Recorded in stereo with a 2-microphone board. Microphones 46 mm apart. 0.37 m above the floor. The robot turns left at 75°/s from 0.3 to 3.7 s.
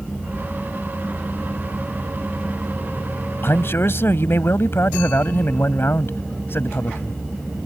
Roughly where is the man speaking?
Left.